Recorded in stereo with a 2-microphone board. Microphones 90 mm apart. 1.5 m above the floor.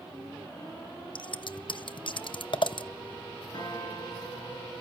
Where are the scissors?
55° left (ahead or behind), 0.6 m.